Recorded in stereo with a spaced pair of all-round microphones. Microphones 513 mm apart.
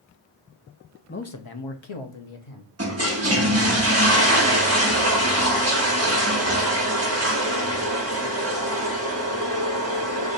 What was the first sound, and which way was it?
A man speaking, 20° left (ahead or behind).